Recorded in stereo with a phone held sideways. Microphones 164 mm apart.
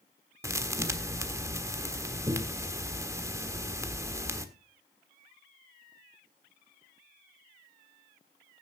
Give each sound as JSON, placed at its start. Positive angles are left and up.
{"t": 0.4, "sound": "a thud", "side_deg": -15, "distance_m": 1.4}